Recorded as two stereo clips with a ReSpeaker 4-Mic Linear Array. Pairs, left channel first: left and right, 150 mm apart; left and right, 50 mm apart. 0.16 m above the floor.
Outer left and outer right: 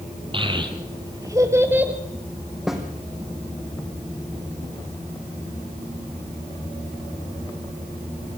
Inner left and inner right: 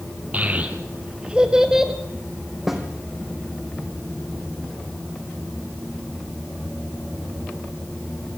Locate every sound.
0.3 s a child speaking: 35° right (ahead or behind), 3 m; by 1.9 s 10° right (ahead or behind), 1.9 m
2.7 s a snare drum: 5° right (ahead or behind), 3 m